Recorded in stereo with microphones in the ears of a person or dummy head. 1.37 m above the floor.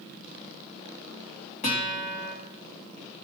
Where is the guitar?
35° left (ahead or behind), 1.5 m.